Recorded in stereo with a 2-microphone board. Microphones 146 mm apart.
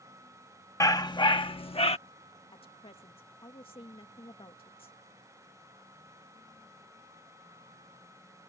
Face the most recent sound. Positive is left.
turn(degrees=40)  # may be behind; listen again after turning